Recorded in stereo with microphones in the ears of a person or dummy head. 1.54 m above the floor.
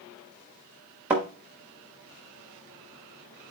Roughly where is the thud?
Centre.